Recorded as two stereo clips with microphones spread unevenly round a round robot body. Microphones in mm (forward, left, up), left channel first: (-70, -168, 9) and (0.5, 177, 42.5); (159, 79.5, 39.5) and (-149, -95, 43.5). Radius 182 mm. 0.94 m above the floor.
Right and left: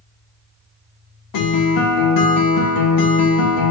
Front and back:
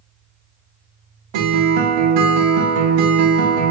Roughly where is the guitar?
Behind right.